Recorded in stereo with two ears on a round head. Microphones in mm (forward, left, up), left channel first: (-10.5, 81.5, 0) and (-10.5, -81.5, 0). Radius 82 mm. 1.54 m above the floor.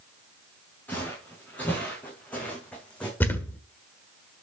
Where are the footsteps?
10° left (ahead or behind), 6.5 m; by 3.1 s 5° left (ahead or behind), 5 m.